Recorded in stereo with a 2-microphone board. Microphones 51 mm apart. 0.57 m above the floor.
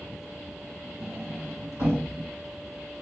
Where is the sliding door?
75° right (ahead or behind), 2.5 m.